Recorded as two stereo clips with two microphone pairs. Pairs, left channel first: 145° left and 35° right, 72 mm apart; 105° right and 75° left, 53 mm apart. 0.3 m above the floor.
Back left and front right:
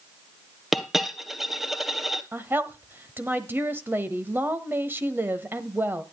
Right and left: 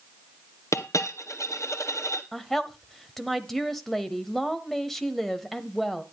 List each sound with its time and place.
0.7 s a dropped coin: 125° right, 1.2 m
2.3 s a woman speaking: 25° right, 1.2 m